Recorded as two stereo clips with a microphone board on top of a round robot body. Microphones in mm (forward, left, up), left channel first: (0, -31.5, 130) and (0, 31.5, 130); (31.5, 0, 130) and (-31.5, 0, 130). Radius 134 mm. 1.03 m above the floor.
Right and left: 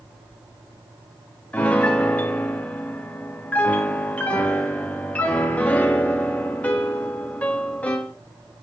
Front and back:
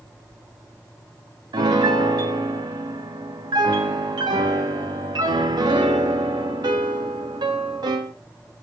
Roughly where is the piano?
Behind.